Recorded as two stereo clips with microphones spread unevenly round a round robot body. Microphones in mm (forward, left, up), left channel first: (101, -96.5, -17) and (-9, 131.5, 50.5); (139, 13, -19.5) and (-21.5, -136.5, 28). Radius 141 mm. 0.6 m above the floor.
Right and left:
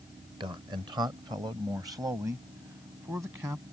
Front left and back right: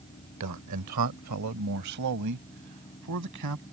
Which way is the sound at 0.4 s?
165° right.